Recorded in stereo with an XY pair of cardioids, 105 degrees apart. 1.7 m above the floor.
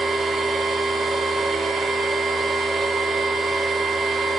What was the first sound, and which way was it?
A machine running, 55° right.